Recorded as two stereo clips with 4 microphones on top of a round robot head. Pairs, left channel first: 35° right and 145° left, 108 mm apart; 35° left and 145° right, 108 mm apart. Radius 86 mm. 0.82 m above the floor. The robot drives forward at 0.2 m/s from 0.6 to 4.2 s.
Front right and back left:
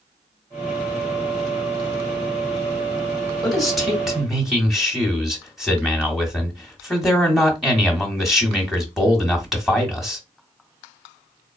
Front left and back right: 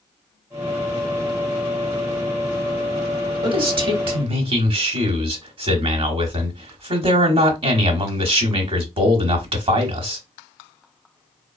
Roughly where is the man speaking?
Behind right.